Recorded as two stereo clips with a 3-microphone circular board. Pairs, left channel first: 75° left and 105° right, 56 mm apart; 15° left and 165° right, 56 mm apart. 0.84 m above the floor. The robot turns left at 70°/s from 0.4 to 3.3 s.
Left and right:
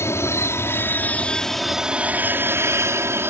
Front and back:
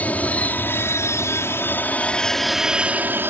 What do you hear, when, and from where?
0.0 s an aircraft: 70° left; by 3.3 s 130° right